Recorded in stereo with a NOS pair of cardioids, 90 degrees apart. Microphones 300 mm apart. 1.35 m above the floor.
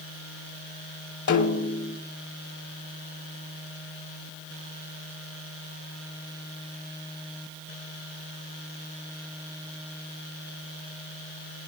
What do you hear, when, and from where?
1.3 s a snare drum: 70° left, 3.5 m